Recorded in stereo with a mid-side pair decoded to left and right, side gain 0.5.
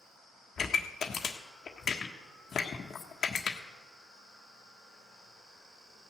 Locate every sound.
0.6 s a pop: 45° left, 1.4 m